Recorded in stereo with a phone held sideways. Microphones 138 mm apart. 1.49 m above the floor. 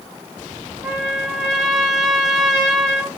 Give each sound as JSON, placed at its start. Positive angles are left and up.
{"t": 0.8, "sound": "a trumpet", "side_deg": -5, "distance_m": 1.3}